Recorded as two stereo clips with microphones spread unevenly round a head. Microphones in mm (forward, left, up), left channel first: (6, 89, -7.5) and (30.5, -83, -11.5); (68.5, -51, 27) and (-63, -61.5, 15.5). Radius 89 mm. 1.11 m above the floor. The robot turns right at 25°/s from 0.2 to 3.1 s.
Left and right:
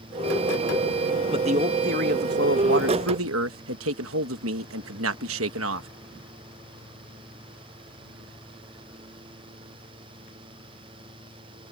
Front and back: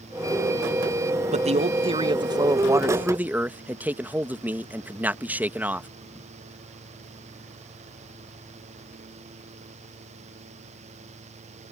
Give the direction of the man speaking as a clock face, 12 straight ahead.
5 o'clock.